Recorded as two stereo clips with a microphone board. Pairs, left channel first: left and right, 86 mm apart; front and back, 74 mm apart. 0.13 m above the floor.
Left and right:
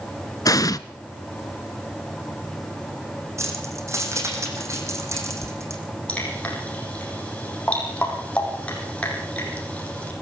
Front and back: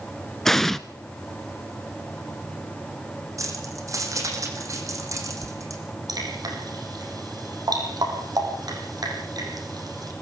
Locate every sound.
0.5 s an explosion: 85° left, 0.7 m
3.4 s keys jangling: 140° right, 4 m
6.1 s dripping: 165° left, 6 m